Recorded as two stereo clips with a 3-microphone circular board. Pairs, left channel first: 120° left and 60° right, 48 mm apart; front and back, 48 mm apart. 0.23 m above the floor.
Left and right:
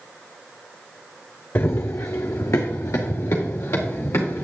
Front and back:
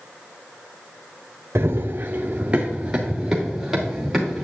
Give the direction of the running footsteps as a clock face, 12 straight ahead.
7 o'clock.